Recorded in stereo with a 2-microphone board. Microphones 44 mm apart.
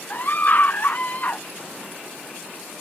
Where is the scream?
40° left (ahead or behind); by 1.4 s 35° left (ahead or behind).